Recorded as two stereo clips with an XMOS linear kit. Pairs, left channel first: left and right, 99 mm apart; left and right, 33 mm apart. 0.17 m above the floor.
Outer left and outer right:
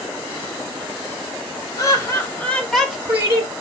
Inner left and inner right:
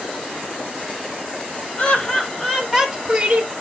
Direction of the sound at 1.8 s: 40° left (ahead or behind).